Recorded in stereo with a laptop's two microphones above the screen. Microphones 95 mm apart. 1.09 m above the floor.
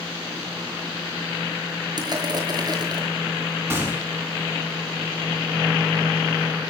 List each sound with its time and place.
2.0 s crushing: 45° right (ahead or behind), 6.5 m
3.7 s a gunshot: 25° right (ahead or behind), 5.5 m